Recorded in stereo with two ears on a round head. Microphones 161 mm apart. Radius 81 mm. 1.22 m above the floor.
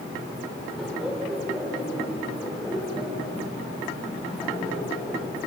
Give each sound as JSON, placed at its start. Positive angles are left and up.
{"t": 0.8, "sound": "laughter", "side_deg": 0, "distance_m": 5.5}